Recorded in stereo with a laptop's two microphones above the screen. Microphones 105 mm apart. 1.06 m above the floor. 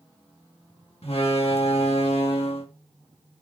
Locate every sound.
1.0 s a door slam: 70° left (ahead or behind), 1.5 m